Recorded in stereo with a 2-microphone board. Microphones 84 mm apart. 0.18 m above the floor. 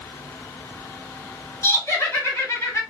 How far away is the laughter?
About 1.6 m.